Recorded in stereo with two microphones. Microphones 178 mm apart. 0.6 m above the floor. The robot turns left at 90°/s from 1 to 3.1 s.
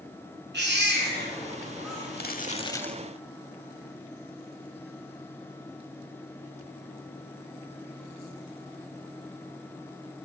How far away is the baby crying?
About 4 m.